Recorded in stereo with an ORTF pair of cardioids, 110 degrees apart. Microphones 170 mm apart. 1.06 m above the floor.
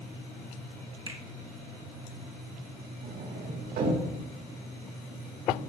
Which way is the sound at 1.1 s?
30° right.